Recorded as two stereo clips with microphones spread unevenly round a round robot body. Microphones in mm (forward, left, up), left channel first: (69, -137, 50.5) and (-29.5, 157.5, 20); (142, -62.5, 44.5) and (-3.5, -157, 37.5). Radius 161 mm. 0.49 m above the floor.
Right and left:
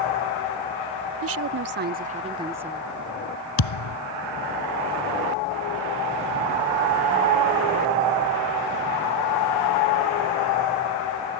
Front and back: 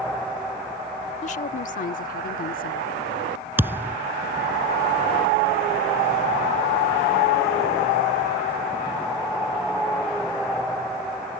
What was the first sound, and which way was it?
A woman speaking, 80° left.